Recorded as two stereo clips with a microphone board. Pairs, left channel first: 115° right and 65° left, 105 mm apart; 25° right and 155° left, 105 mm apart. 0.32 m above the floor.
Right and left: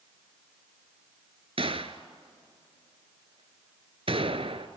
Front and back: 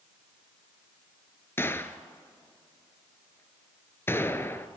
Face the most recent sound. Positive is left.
turn(degrees=45)